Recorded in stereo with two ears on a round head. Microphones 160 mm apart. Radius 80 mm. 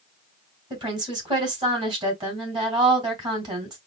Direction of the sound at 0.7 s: 25° right (ahead or behind).